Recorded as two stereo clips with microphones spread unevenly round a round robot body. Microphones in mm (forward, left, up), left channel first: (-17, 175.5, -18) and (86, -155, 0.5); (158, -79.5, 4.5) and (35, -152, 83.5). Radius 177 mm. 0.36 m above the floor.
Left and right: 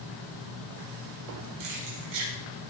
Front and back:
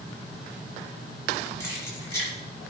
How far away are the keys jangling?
About 6 m.